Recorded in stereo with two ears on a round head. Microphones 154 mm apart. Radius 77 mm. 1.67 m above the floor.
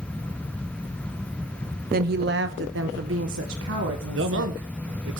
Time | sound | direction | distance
1.9 | a woman speaking | 55° right (ahead or behind) | 0.9 m
4.1 | a man speaking | 80° right | 1.7 m